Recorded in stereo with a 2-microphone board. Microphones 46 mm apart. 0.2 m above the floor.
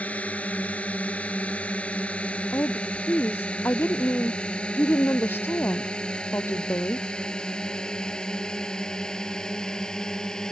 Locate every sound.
0.0 s a drone: 30° left (ahead or behind); by 10.5 s 15° left (ahead or behind)
2.5 s a woman speaking: 55° left (ahead or behind)